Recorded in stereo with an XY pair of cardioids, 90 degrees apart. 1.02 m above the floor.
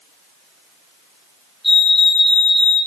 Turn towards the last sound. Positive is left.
turn(degrees=15)